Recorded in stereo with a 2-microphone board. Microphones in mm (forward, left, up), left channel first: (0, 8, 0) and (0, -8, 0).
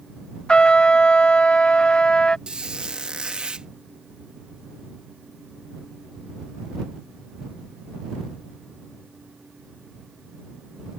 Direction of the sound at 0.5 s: 80° left.